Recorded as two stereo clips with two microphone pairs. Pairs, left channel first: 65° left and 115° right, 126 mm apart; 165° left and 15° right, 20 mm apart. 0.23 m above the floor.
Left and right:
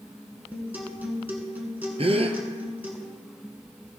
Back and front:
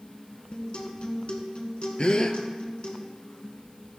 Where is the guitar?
170° left, 1.8 m.